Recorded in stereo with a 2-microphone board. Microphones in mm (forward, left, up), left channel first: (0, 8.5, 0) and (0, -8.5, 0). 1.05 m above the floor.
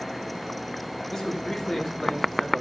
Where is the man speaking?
35° left (ahead or behind), 2.5 m.